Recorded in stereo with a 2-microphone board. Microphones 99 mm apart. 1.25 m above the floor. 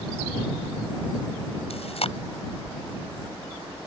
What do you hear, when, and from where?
1.7 s chewing: 70° left (ahead or behind)